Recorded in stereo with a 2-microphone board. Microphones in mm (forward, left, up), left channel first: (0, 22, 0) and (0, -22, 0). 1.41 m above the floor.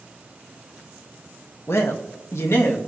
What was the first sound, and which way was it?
A man speaking, 75° left (ahead or behind).